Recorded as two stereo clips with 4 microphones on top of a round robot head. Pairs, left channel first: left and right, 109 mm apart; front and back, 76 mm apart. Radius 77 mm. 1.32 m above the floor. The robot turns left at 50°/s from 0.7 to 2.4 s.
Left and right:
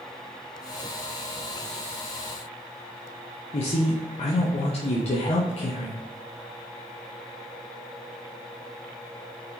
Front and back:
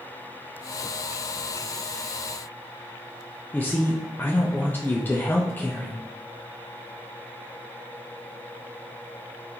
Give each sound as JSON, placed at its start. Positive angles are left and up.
{"t": 3.5, "sound": "a man speaking", "azimuth_deg": 65, "distance_m": 0.6}